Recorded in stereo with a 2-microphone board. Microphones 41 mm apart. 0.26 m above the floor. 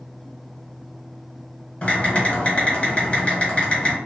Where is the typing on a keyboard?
30° left (ahead or behind), 1.0 m.